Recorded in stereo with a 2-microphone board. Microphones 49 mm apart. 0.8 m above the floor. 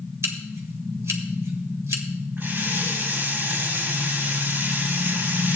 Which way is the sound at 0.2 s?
70° right (ahead or behind).